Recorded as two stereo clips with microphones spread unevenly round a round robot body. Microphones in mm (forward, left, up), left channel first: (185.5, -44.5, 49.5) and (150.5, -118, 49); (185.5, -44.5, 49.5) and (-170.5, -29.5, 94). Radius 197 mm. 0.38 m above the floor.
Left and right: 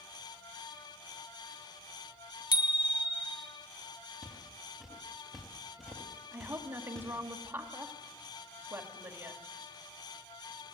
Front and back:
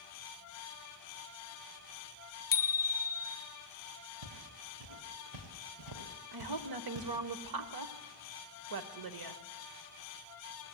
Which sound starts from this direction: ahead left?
A bicycle bell, at 2.5 s.